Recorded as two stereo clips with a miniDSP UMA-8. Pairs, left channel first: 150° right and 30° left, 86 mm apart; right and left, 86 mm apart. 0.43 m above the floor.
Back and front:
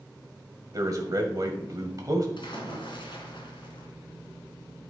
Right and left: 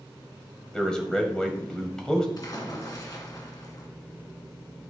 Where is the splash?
135° right, 2 m.